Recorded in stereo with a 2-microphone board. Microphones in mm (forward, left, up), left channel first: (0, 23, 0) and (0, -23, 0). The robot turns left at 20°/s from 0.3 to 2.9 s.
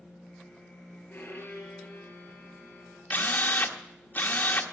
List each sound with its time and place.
1.1 s a violin: 50° left, 3 m; by 3.0 s 15° left, 3 m
3.1 s a drill: 40° left (ahead or behind), 1.1 m